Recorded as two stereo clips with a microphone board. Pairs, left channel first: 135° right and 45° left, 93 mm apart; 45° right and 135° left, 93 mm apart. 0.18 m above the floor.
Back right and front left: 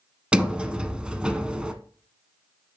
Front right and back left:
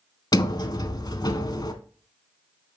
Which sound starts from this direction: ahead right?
A sliding door, at 0.3 s.